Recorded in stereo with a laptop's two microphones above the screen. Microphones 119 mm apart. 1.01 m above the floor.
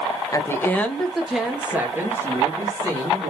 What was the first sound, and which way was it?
A woman speaking, 25° left (ahead or behind).